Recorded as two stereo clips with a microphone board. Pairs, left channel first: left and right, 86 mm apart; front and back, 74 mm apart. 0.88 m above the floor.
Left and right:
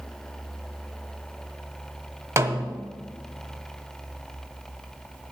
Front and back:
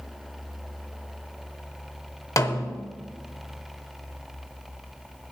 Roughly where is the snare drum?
Ahead right.